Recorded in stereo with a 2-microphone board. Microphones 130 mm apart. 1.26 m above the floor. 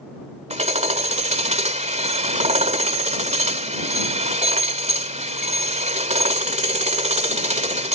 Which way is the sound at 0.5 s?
60° right (ahead or behind).